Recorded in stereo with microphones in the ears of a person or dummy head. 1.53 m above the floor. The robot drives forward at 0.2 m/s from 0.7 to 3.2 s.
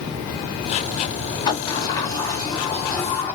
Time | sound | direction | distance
1.5 | a sliding door | 25° left (ahead or behind) | 0.6 m